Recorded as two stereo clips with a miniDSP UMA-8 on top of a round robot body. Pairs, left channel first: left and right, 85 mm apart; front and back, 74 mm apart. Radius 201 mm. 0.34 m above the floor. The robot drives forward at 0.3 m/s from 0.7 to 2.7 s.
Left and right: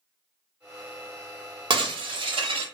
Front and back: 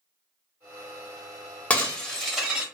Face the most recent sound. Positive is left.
turn(degrees=-100)